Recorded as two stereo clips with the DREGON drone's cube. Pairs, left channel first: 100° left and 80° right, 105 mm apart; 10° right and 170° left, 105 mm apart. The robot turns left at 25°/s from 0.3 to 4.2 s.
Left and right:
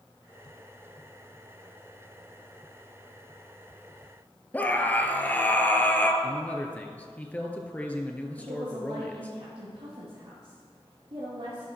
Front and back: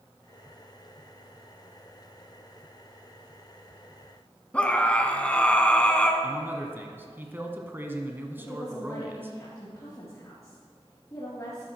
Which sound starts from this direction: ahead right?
A woman speaking, at 8.4 s.